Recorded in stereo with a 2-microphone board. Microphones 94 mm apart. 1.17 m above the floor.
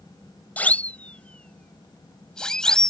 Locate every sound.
0.6 s a siren: 15° left (ahead or behind); by 2.9 s 5° left (ahead or behind)